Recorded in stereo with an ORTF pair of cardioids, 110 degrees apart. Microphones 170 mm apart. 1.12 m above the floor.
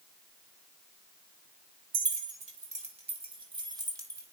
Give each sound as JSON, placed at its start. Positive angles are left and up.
{"t": 1.9, "sound": "keys jangling", "azimuth_deg": -55, "distance_m": 2.5}